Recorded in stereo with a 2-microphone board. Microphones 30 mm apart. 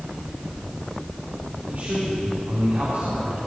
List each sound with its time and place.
1.7 s a man speaking: 75° right (ahead or behind), 5 m